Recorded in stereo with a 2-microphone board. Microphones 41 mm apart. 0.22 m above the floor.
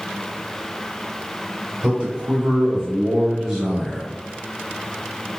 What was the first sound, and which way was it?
A man speaking, 25° right (ahead or behind).